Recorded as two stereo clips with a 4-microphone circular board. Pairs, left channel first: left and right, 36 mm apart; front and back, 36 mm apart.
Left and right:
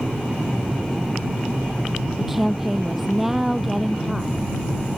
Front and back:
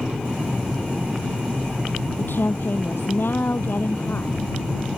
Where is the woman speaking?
5° right.